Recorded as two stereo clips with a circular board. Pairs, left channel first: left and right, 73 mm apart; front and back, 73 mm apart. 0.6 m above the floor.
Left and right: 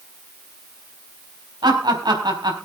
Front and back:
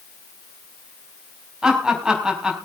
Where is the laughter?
100° right, 4.5 m.